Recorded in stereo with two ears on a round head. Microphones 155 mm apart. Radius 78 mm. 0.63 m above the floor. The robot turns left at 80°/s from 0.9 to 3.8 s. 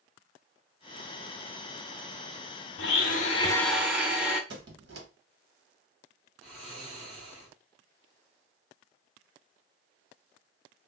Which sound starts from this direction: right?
A squeak, at 4.5 s.